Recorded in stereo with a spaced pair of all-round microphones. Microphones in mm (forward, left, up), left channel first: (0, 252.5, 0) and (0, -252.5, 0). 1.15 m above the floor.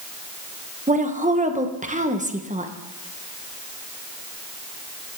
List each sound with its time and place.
0.9 s a woman speaking: 15° right (ahead or behind), 1.0 m